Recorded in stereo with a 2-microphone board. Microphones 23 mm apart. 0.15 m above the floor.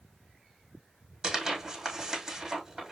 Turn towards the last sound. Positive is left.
turn(degrees=-20)  # may be behind; listen again after turning